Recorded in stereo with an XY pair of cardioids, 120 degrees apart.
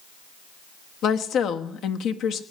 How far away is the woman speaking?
About 1.2 m.